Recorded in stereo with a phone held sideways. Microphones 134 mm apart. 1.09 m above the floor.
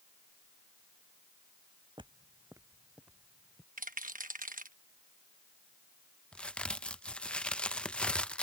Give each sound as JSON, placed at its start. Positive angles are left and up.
{"t": 2.0, "sound": "footsteps", "side_deg": -35}
{"t": 3.8, "sound": "a rattle", "side_deg": -80}
{"t": 6.3, "sound": "a crack", "side_deg": 10}